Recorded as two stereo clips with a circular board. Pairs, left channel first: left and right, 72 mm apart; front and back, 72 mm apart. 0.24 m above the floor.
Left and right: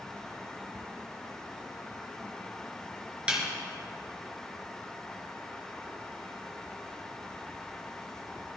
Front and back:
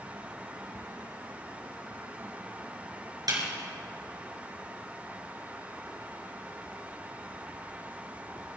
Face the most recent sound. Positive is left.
turn(degrees=-165)